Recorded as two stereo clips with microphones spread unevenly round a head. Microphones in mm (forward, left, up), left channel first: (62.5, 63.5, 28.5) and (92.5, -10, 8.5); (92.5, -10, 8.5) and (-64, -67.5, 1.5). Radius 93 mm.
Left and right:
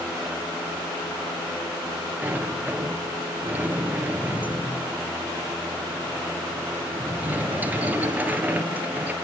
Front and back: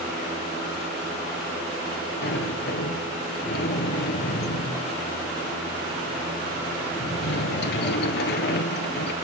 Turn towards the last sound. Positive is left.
turn(degrees=5)